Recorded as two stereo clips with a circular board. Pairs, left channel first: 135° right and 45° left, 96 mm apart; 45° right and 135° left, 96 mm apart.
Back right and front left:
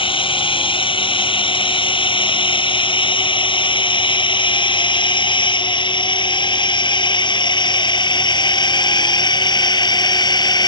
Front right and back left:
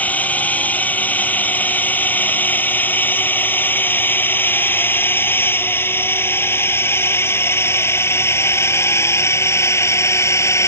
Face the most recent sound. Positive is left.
turn(degrees=-100)